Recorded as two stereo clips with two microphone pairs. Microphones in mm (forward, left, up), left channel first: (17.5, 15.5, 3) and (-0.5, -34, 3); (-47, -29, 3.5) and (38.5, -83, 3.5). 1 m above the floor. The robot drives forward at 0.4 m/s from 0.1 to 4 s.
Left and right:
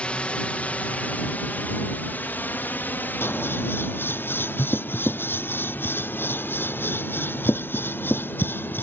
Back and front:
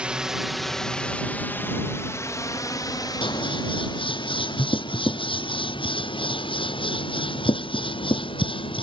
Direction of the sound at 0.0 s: 35° left.